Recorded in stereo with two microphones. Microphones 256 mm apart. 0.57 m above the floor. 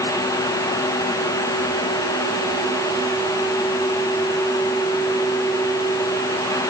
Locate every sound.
Only background noise.